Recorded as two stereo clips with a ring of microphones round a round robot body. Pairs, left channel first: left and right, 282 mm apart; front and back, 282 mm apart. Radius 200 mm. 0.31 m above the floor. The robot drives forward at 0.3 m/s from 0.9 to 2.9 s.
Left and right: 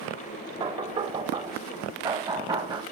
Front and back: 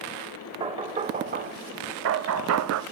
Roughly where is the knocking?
Behind right.